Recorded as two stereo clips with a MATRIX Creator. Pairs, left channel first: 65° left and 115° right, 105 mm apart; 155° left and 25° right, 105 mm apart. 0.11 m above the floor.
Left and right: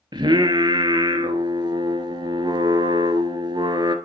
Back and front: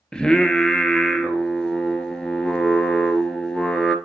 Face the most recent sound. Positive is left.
turn(degrees=-120)